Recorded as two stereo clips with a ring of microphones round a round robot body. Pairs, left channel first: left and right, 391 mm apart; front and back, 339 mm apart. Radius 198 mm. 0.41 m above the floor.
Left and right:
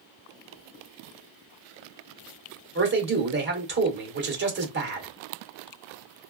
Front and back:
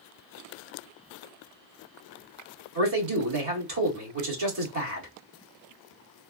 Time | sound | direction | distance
2.8 | a man speaking | 150° right | 1.5 m